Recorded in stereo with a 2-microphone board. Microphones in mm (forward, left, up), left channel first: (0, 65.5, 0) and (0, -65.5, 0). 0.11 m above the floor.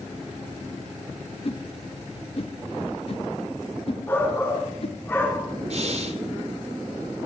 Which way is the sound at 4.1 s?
20° left (ahead or behind).